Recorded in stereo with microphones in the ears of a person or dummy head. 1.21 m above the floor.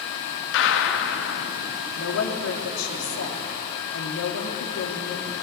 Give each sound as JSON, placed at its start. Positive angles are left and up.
{"t": 0.5, "sound": "a gunshot", "side_deg": 75, "distance_m": 1.7}
{"t": 2.0, "sound": "a woman speaking", "side_deg": 80, "distance_m": 2.5}